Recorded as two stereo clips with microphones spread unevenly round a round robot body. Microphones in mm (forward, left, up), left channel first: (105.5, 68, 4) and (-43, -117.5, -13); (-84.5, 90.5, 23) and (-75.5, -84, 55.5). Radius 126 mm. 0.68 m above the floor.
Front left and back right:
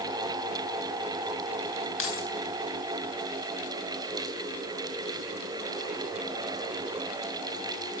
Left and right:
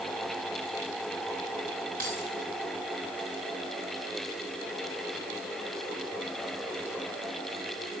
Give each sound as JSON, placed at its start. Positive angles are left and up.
{"t": 2.0, "sound": "keys jangling", "azimuth_deg": 15, "distance_m": 3.5}